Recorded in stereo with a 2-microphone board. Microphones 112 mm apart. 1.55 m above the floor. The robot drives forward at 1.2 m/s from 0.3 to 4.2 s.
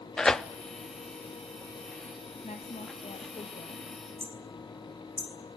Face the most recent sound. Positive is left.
turn(degrees=-65)  # may be behind; listen again after turning